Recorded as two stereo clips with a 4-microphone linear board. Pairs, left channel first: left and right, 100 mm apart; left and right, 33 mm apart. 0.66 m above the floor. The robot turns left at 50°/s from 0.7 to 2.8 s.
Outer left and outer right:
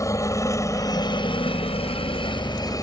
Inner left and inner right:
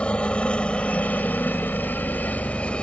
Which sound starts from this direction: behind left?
A helicopter, at 0.0 s.